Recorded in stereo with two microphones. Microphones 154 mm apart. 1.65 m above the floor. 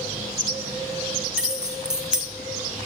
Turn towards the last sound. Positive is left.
turn(degrees=-5)  # may be behind; listen again after turning